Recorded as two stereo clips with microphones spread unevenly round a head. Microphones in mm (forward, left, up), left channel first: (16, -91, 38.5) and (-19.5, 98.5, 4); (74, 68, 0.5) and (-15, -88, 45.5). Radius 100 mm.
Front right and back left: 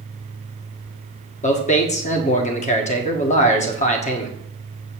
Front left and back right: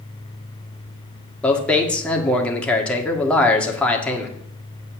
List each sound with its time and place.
1.4 s a man speaking: 20° right, 1.8 m